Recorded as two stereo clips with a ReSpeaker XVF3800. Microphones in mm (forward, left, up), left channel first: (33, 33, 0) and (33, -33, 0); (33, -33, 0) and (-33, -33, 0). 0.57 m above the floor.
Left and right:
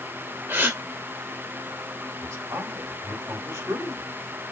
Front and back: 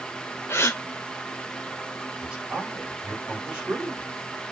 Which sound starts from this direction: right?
A man speaking, at 2.2 s.